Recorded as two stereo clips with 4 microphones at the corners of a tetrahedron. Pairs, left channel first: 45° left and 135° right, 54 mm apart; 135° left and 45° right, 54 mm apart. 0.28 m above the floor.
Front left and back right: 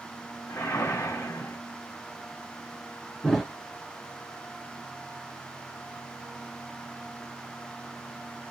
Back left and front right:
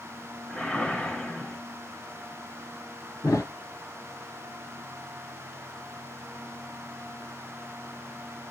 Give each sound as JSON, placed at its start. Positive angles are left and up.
{"t": 0.5, "sound": "a whoosh", "azimuth_deg": 60, "distance_m": 1.5}
{"t": 3.2, "sound": "a thud", "azimuth_deg": 135, "distance_m": 1.5}